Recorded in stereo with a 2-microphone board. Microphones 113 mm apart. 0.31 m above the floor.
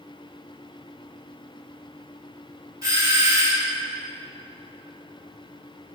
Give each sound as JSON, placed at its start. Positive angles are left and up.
{"t": 2.8, "sound": "a doorbell", "side_deg": -30, "distance_m": 1.8}